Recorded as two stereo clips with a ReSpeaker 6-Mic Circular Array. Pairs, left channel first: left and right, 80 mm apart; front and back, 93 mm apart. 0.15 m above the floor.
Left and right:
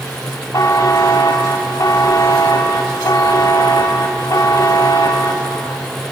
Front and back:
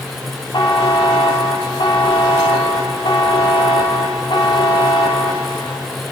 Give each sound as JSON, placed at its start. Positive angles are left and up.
{"t": 0.5, "sound": "a buzzer", "azimuth_deg": 40, "distance_m": 4.0}